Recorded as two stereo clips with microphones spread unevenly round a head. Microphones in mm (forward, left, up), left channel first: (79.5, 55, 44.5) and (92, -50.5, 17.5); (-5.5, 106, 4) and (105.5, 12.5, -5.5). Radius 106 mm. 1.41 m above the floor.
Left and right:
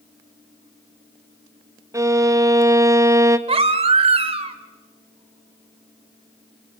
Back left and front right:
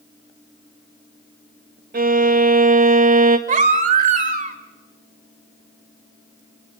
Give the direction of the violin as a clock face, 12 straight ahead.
1 o'clock.